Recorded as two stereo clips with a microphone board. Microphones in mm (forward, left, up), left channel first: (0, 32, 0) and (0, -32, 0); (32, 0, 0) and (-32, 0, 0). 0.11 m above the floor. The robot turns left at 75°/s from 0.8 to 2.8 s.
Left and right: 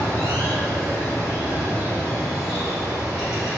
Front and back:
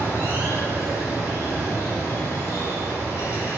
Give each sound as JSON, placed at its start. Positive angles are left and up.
{"t": 0.0, "sound": "running water", "azimuth_deg": 135, "distance_m": 1.3}